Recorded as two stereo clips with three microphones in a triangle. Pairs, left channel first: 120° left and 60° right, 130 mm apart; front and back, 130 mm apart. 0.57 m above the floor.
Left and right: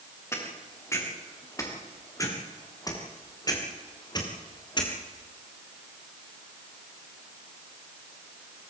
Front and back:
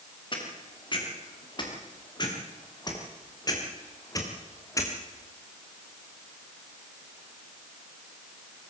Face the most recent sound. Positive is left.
turn(degrees=65)